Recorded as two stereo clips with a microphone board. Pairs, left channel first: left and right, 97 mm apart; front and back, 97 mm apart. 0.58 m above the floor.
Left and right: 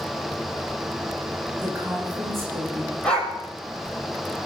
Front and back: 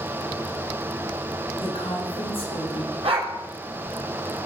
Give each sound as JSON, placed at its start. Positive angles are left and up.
{"t": 1.6, "sound": "a woman speaking", "azimuth_deg": -20, "distance_m": 8.5}
{"t": 3.0, "sound": "a dog barking", "azimuth_deg": 170, "distance_m": 5.5}